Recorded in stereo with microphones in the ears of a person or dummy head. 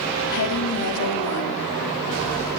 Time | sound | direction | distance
0.3 | a woman speaking | 75° left (ahead or behind) | 3.5 m